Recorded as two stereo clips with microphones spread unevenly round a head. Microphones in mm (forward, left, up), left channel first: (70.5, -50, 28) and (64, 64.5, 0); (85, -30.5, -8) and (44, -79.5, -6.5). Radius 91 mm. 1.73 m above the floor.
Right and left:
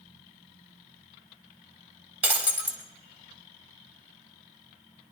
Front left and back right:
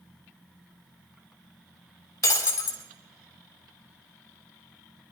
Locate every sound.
2.2 s breaking glass: 15° left, 3.5 m